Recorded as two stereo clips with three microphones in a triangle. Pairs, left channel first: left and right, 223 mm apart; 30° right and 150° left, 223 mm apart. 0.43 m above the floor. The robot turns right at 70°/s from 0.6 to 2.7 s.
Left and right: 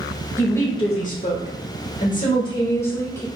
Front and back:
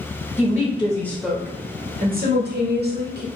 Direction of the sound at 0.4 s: 15° left.